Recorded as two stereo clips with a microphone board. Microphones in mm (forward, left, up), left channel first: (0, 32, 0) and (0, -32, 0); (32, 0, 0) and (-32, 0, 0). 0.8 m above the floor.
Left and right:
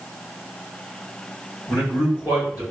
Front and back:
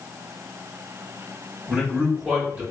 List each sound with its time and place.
1.7 s a man speaking: 115° left, 1.9 m